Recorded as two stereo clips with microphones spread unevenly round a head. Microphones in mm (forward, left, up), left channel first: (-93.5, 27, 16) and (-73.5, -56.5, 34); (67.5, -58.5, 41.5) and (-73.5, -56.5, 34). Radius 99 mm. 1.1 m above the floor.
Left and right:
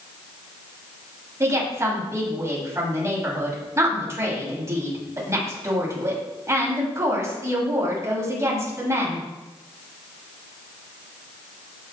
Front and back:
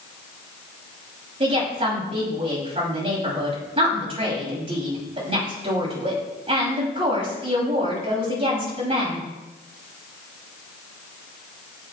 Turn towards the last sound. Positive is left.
turn(degrees=-130)